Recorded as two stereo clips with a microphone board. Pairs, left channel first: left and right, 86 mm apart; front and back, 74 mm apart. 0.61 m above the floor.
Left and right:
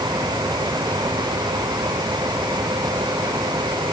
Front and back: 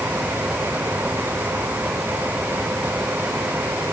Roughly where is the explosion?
No explosion in this recording.